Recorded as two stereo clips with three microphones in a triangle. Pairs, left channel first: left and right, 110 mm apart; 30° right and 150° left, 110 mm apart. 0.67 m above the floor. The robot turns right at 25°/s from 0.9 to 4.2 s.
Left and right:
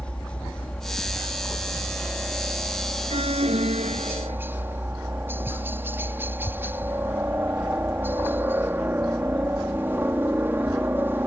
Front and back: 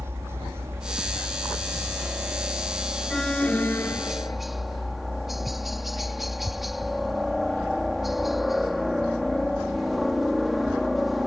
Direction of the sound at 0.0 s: 155° left.